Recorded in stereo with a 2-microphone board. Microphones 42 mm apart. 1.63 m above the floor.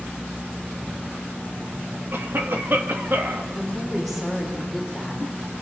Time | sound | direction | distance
2.1 | a cough | 55° right (ahead or behind) | 2.5 m
3.5 | a woman speaking | centre (ahead or behind) | 6 m